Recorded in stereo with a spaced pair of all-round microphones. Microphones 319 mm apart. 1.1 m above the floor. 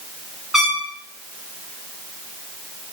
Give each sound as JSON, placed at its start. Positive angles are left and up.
{"t": 0.5, "sound": "a trumpet", "side_deg": 0, "distance_m": 3.5}